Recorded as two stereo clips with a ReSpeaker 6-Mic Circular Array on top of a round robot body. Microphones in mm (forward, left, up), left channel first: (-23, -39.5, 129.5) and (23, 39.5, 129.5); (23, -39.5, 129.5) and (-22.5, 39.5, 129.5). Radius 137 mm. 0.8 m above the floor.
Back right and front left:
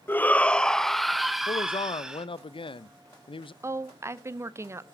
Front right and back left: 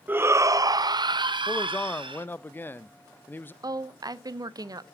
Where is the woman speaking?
105° left, 0.8 m.